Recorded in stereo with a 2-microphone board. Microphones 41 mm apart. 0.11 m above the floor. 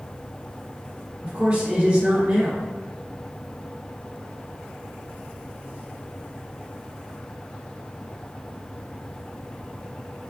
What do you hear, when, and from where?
1.2 s a man speaking: 30° right (ahead or behind), 2.0 m